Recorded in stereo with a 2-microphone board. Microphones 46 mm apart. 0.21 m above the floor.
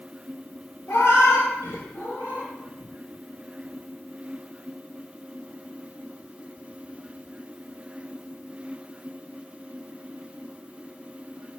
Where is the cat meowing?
65° left (ahead or behind), 0.5 m; by 2.5 s 40° left (ahead or behind), 1.2 m.